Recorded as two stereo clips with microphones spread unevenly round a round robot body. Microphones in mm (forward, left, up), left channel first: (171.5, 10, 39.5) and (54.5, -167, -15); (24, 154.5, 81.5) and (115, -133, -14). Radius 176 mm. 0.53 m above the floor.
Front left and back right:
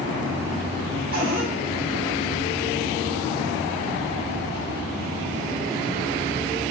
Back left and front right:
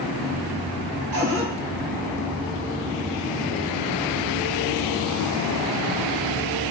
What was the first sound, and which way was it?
A cupboard door, 110° right.